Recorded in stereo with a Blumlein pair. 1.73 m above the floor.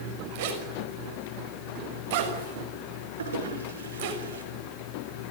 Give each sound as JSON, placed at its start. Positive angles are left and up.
{"t": 0.3, "sound": "a zipper", "azimuth_deg": -50, "distance_m": 6.0}
{"t": 3.2, "sound": "a toilet flushing", "azimuth_deg": -65, "distance_m": 5.5}